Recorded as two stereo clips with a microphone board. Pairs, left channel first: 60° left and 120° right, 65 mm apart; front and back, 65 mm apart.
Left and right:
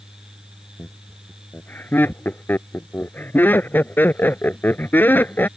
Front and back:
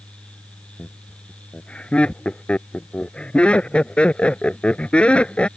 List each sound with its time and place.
0.8 s laughter: 55° left